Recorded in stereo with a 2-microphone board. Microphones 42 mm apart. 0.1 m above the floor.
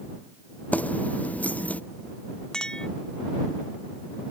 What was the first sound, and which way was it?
Keys jangling, 40° left (ahead or behind).